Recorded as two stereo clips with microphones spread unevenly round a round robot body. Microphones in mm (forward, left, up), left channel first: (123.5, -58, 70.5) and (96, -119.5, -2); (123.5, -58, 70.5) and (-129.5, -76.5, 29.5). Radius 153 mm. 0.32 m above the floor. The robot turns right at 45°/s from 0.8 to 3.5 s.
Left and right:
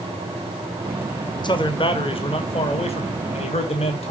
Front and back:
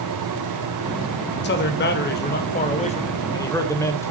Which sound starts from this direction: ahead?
A man speaking, at 1.4 s.